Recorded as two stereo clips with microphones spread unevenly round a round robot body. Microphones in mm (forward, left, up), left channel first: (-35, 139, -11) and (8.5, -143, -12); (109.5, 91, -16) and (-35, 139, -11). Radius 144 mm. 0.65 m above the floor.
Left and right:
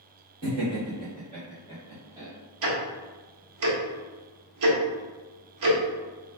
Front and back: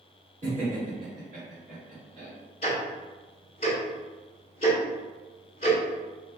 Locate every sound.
0.4 s laughter: 125° right, 2.0 m; by 2.3 s 165° right, 1.5 m
2.6 s ticking: 75° right, 1.0 m